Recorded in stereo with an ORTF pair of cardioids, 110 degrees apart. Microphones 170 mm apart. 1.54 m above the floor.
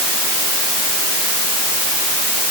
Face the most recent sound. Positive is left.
No sound to turn to.